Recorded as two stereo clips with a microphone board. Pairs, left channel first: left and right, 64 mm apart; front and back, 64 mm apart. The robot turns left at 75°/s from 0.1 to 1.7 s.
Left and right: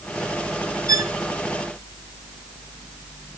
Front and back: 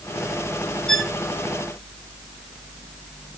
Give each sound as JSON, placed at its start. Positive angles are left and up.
{"t": 0.9, "sound": "a violin", "azimuth_deg": -80, "distance_m": 1.0}